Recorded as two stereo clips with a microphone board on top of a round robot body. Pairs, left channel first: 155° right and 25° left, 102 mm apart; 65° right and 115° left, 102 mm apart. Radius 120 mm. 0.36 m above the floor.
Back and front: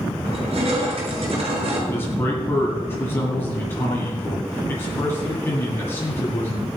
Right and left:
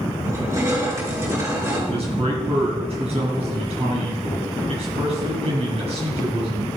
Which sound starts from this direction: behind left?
A man speaking, at 1.9 s.